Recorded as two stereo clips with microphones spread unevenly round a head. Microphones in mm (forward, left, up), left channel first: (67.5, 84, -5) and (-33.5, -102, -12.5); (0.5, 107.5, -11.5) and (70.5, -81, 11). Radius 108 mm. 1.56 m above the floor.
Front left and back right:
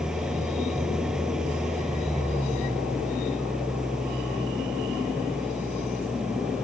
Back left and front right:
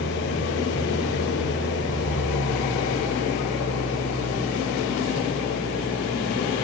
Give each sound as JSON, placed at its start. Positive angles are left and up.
{"t": 0.0, "sound": "an engine running", "azimuth_deg": 155}